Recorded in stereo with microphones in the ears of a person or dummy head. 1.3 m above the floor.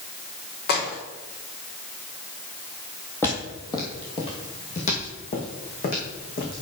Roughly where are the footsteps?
Centre.